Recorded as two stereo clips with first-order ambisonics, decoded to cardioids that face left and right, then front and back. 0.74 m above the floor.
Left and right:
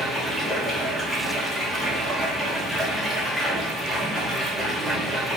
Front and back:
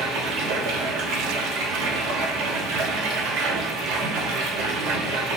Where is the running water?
175° right, 0.9 m.